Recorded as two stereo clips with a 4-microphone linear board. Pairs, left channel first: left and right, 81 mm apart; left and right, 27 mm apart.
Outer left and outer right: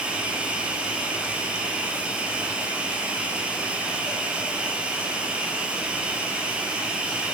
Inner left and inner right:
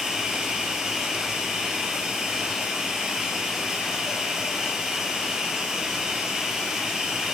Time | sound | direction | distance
0.0 | running water | 15° right (ahead or behind) | 4 m